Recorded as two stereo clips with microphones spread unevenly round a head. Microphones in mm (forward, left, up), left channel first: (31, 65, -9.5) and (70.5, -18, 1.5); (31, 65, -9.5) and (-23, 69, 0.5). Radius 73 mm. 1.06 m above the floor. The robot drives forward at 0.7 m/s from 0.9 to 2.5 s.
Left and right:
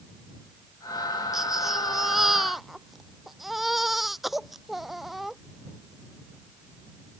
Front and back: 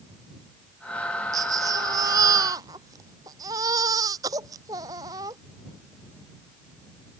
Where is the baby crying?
150° right; by 5.4 s 155° right.